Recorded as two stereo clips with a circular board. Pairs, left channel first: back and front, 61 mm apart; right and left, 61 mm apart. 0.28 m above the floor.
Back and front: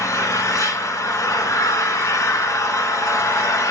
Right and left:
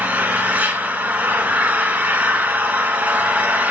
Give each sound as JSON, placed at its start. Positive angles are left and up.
{"t": 0.0, "sound": "an engine running", "azimuth_deg": 155, "distance_m": 1.1}